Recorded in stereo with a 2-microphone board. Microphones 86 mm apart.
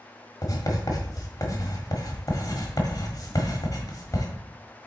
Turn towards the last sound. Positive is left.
turn(degrees=45)  # may be behind; listen again after turning